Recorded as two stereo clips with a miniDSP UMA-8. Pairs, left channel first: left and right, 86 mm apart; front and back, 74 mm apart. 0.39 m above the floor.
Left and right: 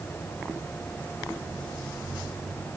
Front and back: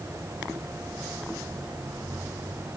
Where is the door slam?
No door slam in this recording.